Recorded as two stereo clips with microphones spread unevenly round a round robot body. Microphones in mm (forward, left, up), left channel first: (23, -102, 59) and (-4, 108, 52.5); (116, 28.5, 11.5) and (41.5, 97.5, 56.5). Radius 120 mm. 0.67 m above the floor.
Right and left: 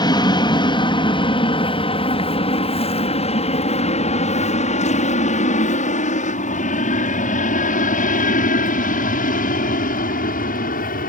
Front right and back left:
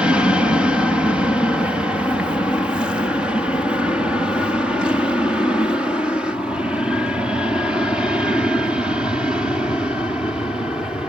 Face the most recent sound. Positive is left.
turn(degrees=-120)